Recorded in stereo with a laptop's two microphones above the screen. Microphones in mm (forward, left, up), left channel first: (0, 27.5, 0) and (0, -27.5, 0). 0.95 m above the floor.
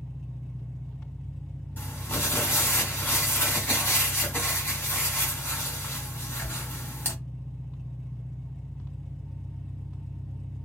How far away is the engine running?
About 1.4 m.